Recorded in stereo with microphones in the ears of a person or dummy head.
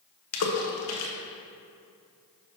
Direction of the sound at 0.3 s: 70° left (ahead or behind).